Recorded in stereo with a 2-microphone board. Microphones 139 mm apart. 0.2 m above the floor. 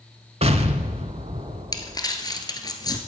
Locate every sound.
0.4 s an explosion: 50° right (ahead or behind), 0.7 m
1.7 s crumpling: 25° left (ahead or behind), 1.1 m